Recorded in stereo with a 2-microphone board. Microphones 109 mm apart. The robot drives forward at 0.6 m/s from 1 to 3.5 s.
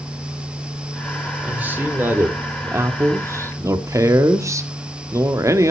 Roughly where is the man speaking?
Centre.